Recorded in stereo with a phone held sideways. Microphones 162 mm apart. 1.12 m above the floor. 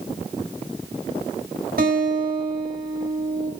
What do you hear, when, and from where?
1.8 s a guitar: 80° right, 8 m